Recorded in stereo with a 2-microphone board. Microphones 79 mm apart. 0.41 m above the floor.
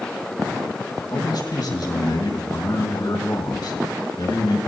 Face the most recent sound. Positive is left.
turn(degrees=65)  # may be behind; listen again after turning